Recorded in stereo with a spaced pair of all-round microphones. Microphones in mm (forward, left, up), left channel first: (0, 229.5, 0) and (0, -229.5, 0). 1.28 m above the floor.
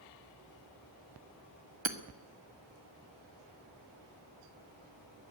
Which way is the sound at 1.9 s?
70° right (ahead or behind).